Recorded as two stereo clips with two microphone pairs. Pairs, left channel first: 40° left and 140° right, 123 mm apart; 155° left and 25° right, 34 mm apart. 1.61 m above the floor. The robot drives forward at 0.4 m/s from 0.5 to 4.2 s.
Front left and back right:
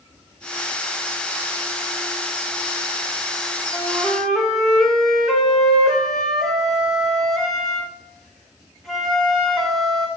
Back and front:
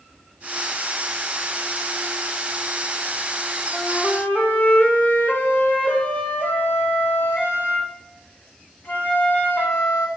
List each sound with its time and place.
3.7 s a flute: 125° left, 1.5 m; by 10.1 s 130° left, 1.6 m